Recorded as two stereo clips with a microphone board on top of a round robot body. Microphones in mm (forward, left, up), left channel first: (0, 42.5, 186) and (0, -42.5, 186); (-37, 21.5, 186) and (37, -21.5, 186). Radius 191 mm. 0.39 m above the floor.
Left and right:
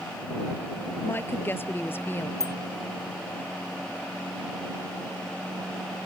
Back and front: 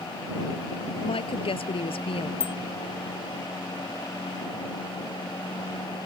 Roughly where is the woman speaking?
Behind left.